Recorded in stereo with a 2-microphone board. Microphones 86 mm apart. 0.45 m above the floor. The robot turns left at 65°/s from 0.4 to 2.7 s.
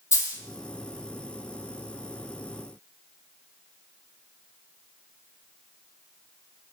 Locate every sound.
0.1 s a dropped coin: 40° left (ahead or behind), 0.5 m